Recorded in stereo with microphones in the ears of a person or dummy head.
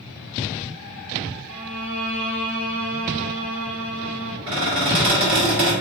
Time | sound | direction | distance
1.5 | a violin | 15° right (ahead or behind) | 1.2 m
4.5 | a squeak | 55° right (ahead or behind) | 1.7 m